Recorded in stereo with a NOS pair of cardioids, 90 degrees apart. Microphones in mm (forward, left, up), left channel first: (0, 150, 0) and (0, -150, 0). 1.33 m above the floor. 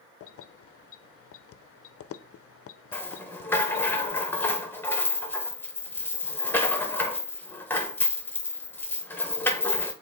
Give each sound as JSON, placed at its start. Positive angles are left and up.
{"t": 0.2, "sound": "keys jangling", "azimuth_deg": 50, "distance_m": 0.6}
{"t": 2.9, "sound": "a rattle", "azimuth_deg": 5, "distance_m": 1.2}